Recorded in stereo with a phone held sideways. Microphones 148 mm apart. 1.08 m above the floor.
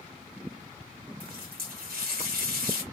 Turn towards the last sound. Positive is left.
turn(degrees=-80)